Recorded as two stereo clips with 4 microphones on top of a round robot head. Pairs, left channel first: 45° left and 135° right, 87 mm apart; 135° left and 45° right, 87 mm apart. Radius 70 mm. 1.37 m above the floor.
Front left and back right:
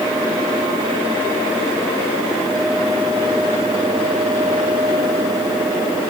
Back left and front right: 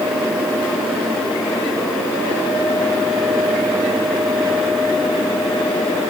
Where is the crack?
No crack in this recording.